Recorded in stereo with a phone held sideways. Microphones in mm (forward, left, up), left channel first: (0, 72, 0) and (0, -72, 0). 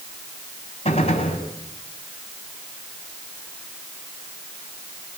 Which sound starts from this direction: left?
A gunshot, at 0.8 s.